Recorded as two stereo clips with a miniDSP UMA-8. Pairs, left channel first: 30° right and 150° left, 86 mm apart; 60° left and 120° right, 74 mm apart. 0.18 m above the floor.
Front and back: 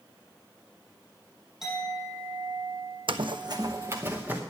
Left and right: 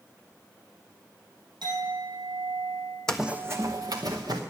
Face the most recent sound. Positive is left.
turn(degrees=-140)